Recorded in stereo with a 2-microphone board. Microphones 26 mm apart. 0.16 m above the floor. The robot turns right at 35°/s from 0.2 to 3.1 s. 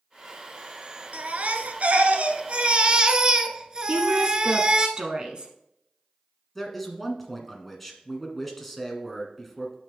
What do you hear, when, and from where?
1.1 s a baby crying: 105° right, 0.7 m; by 4.9 s 35° right, 0.7 m
3.9 s a woman speaking: 35° right (ahead or behind), 1.2 m
6.5 s a man speaking: 5° left (ahead or behind), 1.6 m